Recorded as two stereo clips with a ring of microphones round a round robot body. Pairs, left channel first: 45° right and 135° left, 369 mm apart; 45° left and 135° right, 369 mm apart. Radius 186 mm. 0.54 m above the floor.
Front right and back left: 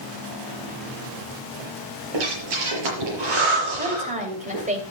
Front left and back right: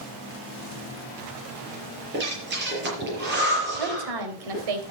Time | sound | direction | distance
2.1 | breathing | 160° left | 6 m
3.8 | a woman speaking | 155° right | 3 m